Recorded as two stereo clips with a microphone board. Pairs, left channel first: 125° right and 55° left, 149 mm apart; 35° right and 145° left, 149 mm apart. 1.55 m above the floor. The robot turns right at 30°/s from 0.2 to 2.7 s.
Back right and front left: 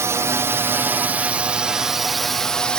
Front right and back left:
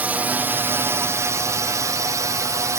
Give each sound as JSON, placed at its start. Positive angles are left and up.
{"t": 0.0, "sound": "a drone", "azimuth_deg": 85}